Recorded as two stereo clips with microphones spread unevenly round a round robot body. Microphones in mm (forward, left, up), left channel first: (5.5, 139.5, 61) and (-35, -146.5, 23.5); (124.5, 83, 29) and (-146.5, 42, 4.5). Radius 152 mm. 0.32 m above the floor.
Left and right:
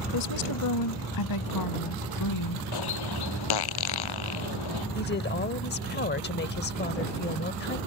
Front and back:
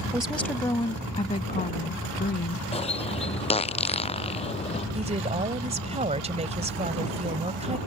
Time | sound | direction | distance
0.1 | a woman speaking | 110° left | ?
2.7 | a bird | 75° left | ?
5.0 | a woman speaking | 135° left | ?